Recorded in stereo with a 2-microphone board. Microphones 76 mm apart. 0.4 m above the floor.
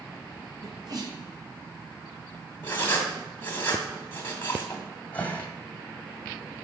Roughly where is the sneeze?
Right.